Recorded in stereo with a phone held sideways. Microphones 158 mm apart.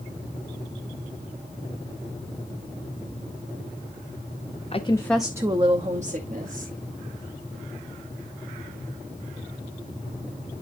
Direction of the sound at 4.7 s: 40° left (ahead or behind).